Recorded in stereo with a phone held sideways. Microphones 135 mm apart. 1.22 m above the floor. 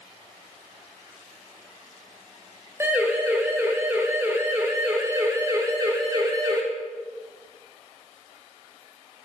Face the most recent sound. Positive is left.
turn(degrees=-30)  # may be behind; listen again after turning